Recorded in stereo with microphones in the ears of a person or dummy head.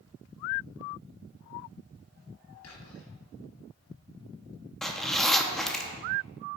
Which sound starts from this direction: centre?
A zipper, at 4.8 s.